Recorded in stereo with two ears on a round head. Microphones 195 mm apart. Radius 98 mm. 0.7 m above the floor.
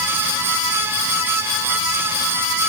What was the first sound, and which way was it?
Only background noise.